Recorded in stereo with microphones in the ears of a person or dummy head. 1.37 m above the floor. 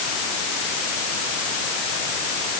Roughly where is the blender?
I don't hear a blender.